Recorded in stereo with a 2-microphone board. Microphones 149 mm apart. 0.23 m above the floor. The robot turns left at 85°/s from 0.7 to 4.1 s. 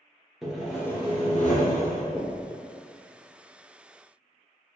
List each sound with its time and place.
0.4 s sawing: straight behind, 0.6 m; by 2.0 s 70° left, 0.6 m
2.1 s knocking: 25° left (ahead or behind), 1.3 m; by 2.5 s 10° left (ahead or behind), 1.3 m